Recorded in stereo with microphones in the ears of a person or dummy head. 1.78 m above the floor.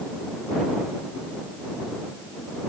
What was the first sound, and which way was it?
Only background noise.